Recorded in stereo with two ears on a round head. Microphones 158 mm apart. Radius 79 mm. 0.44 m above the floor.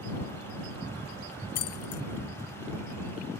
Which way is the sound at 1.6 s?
65° left (ahead or behind).